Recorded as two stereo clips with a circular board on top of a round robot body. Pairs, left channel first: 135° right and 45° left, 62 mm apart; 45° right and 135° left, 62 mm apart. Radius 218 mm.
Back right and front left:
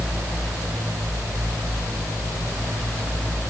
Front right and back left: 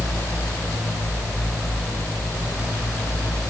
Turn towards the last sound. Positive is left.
No sound to turn to.